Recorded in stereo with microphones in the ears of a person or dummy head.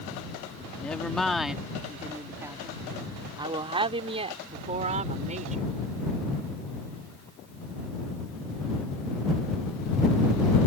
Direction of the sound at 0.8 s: 10° left (ahead or behind).